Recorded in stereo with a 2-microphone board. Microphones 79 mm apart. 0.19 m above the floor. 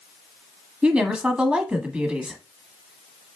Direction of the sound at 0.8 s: 15° right (ahead or behind).